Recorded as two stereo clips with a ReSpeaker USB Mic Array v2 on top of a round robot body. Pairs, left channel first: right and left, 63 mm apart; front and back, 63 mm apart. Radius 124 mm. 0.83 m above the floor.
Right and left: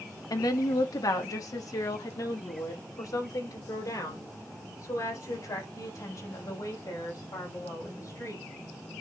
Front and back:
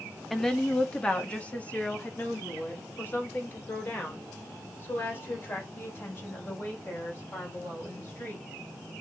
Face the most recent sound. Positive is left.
turn(degrees=-50)